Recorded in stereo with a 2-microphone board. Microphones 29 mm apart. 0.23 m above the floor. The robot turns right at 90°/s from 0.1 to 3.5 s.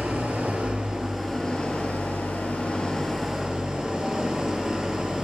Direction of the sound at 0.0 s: 105° right.